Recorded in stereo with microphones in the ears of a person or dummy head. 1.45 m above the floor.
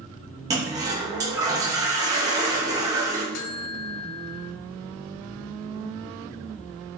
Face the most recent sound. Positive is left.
turn(degrees=70)  # may be behind; listen again after turning